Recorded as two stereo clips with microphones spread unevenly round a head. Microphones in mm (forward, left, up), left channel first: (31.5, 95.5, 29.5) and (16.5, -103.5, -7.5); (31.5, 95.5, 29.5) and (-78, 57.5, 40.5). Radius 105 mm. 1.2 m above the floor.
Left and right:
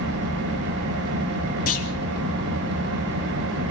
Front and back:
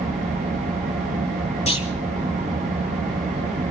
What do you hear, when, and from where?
0.0 s an engine running: 120° right, 6 m
1.7 s a clunk: 45° left, 3.5 m